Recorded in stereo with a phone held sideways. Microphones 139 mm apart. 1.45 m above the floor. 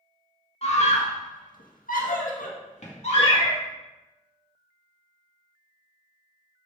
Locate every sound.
0.6 s a scream: 50° left (ahead or behind), 2 m; by 3.6 s 40° left (ahead or behind), 3 m
3.2 s a cat meowing: 35° left (ahead or behind), 1.2 m